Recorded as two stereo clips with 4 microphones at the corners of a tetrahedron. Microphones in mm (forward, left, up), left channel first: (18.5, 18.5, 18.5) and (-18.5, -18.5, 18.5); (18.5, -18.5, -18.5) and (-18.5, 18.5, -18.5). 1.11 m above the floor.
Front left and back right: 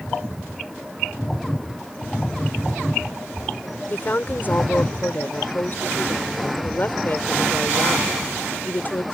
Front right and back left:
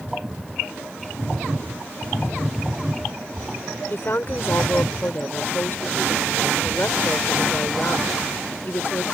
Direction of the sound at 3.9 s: 5° right.